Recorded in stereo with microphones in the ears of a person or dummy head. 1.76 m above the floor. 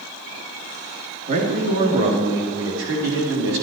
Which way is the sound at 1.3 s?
50° right (ahead or behind).